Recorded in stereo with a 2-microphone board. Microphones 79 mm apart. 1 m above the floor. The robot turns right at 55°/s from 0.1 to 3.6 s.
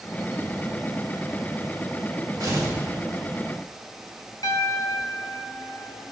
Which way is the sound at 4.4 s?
55° left (ahead or behind).